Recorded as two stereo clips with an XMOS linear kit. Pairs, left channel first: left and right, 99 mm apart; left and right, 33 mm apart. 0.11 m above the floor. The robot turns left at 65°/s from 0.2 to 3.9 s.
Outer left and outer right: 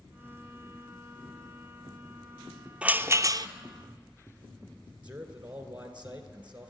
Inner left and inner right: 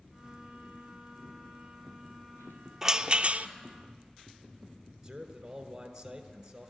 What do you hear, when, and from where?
2.8 s a rattle: 15° right, 0.6 m; by 3.5 s 60° right, 0.6 m
5.0 s a man speaking: 15° right (ahead or behind), 1.5 m